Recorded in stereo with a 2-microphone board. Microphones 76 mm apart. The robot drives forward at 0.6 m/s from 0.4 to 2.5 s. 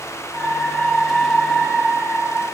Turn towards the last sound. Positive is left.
No sound to turn to.